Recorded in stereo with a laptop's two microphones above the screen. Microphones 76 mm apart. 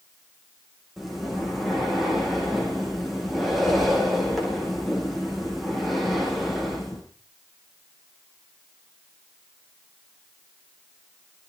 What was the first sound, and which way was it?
Breathing, centre (ahead or behind).